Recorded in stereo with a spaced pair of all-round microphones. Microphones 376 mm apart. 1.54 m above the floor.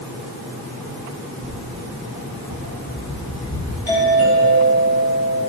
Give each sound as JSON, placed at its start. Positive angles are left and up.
{"t": 1.4, "sound": "footsteps", "side_deg": 60, "distance_m": 3.0}
{"t": 3.9, "sound": "a doorbell", "side_deg": 70, "distance_m": 7.5}